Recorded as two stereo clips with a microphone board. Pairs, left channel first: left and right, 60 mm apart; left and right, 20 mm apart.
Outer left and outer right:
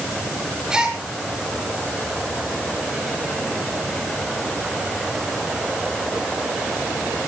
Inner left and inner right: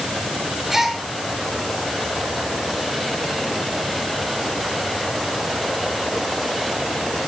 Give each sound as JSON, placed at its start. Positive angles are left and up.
{"t": 0.7, "sound": "a gasp", "side_deg": -15, "distance_m": 5.5}